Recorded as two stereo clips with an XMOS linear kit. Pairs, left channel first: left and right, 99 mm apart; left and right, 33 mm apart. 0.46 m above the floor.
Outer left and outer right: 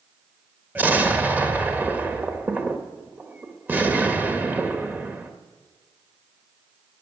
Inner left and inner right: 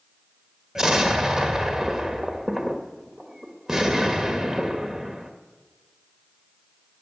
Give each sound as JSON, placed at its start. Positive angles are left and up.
{"t": 0.8, "sound": "an explosion", "side_deg": -15, "distance_m": 1.4}